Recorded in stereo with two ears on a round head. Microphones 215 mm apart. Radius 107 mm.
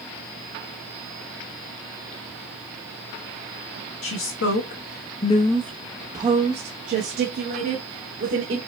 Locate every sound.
4.0 s a woman speaking: 55° left (ahead or behind), 1.2 m; by 8.6 s 50° right (ahead or behind), 2 m